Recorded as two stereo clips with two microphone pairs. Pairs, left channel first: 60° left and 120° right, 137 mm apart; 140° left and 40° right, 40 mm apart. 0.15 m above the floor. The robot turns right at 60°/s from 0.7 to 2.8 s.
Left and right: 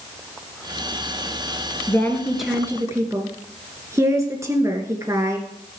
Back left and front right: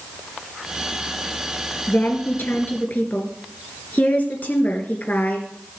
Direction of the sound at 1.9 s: 120° left.